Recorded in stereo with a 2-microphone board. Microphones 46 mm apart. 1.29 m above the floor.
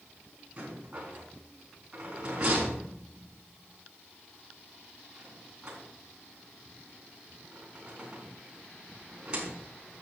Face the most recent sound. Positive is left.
turn(degrees=-25)  # may be behind; listen again after turning